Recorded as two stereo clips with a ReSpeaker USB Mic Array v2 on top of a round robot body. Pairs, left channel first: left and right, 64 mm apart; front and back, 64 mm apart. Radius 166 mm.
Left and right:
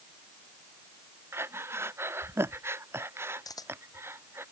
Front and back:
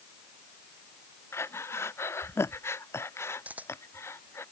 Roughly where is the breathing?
Ahead right.